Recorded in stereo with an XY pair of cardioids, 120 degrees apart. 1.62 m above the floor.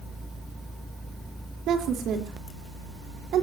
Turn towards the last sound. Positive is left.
turn(degrees=-65)